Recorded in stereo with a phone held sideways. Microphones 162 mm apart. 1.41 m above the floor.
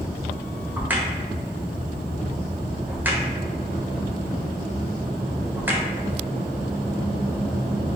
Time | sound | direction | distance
0.8 | a crack | 10° right (ahead or behind) | 0.6 m